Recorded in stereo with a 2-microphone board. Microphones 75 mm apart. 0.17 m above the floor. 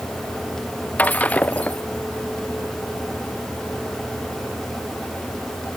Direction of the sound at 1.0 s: 20° left (ahead or behind).